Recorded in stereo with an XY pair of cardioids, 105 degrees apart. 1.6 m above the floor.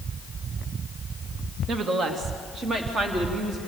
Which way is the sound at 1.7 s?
60° right.